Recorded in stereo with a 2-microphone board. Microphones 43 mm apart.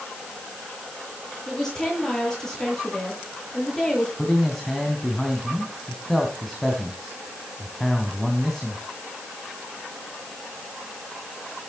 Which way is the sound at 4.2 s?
5° left (ahead or behind).